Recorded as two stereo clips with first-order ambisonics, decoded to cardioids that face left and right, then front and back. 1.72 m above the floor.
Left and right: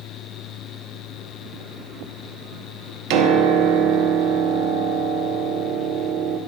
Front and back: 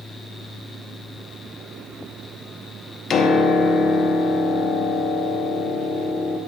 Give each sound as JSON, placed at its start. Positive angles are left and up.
{"t": 3.1, "sound": "a piano", "azimuth_deg": -65, "distance_m": 1.4}